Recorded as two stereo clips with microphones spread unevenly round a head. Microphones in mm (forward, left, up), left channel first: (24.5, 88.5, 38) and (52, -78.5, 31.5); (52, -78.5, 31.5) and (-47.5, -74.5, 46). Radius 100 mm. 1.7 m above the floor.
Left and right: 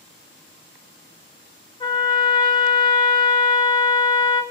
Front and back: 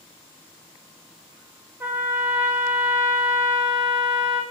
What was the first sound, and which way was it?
A trumpet, 135° left.